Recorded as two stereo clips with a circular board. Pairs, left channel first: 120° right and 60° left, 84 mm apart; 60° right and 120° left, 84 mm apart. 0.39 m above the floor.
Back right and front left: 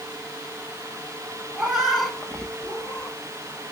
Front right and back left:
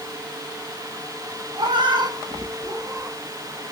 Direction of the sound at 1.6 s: 140° left.